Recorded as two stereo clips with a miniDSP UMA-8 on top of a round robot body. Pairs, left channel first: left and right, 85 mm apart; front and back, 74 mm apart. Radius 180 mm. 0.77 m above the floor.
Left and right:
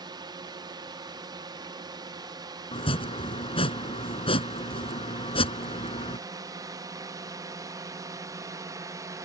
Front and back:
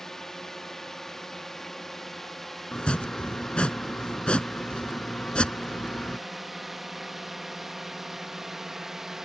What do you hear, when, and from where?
0.0 s a drone: 80° right; by 9.3 s 95° right
2.7 s chopping: 80° left